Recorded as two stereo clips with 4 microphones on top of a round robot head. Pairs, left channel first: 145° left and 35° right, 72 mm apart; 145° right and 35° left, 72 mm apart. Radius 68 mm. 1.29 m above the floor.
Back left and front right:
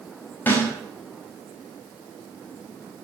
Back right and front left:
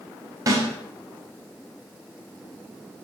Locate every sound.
0.5 s a snare drum: 80° left, 6 m